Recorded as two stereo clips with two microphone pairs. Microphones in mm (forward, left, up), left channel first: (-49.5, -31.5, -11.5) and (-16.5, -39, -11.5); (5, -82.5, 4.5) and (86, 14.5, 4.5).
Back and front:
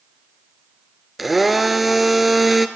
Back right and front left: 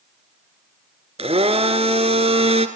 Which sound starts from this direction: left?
A blender, at 1.2 s.